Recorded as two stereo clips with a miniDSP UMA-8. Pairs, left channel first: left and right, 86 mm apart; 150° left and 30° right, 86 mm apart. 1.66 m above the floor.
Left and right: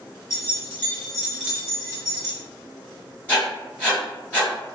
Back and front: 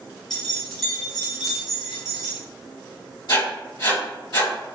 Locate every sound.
0.3 s keys jangling: 70° left, 1.1 m; by 2.4 s 110° right, 1.2 m
3.3 s writing: 160° left, 1.8 m